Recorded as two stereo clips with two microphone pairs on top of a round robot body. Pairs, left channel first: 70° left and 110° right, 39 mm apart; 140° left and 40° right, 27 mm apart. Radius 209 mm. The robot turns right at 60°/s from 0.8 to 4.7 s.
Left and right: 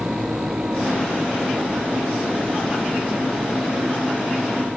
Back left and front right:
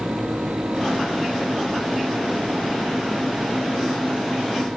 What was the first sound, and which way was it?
Only background noise.